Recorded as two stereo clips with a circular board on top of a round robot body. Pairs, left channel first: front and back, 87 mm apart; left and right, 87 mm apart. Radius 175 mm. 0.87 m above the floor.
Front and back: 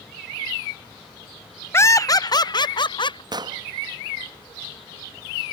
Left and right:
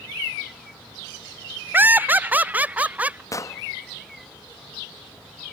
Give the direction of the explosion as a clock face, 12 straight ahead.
7 o'clock.